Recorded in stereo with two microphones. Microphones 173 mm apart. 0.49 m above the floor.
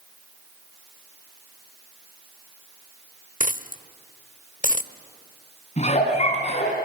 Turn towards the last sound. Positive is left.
turn(degrees=40)  # may be behind; listen again after turning